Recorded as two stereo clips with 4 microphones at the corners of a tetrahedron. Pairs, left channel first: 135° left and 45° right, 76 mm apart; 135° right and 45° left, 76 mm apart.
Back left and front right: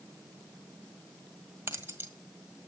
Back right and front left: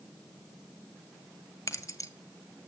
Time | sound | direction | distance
1.7 | keys jangling | 95° right | 1.7 m